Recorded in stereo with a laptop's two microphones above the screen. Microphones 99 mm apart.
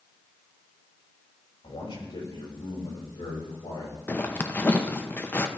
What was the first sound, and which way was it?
A man speaking, 70° left (ahead or behind).